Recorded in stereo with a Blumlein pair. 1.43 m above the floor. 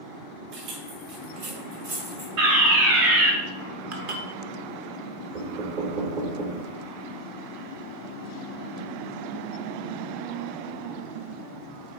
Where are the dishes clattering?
45° right, 1.4 m.